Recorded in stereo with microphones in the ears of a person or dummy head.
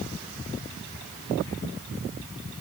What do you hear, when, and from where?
Only background noise.